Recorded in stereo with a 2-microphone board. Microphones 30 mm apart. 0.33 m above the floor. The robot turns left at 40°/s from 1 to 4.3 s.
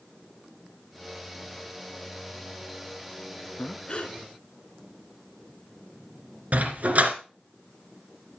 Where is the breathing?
25° left (ahead or behind), 2 m; by 4.2 s 45° left (ahead or behind), 2 m.